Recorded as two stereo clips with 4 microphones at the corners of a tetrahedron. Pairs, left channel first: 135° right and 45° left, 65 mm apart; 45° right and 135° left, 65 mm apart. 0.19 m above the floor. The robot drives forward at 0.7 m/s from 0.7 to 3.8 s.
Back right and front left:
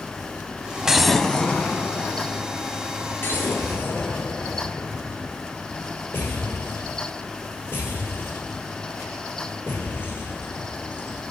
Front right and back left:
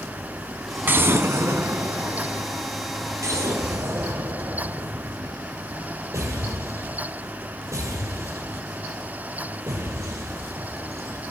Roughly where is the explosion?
Behind left.